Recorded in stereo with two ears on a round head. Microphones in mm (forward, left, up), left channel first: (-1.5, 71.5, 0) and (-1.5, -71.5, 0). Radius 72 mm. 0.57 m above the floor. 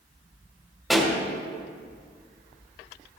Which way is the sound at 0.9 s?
Centre (ahead or behind).